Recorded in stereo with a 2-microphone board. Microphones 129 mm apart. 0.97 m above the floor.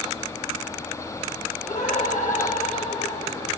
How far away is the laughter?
About 8.5 m.